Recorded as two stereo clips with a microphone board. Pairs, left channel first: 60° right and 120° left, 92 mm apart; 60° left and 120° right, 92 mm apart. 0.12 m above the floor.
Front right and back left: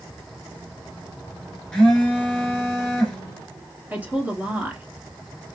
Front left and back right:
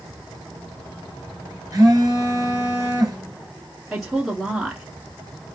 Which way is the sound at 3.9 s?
150° left.